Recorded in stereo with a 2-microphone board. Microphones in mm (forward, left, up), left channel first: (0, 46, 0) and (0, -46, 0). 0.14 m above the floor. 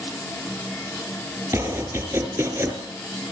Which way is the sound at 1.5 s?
30° right (ahead or behind).